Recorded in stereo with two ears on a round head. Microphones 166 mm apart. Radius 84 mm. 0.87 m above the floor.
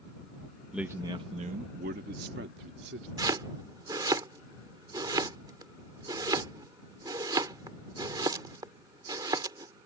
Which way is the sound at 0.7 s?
5° right (ahead or behind).